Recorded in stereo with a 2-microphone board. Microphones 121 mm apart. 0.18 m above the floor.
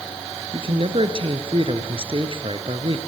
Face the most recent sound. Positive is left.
turn(degrees=-50)  # may be behind; listen again after turning